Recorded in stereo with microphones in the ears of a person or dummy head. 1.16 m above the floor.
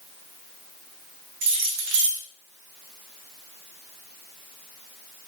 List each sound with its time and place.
1.4 s keys jangling: 70° right (ahead or behind), 0.8 m